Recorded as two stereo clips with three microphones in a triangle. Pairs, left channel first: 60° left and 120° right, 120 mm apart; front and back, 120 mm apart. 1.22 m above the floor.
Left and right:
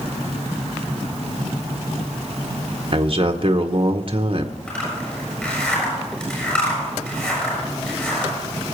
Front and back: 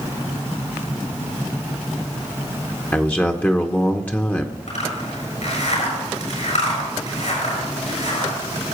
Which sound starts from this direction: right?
A man speaking, at 2.9 s.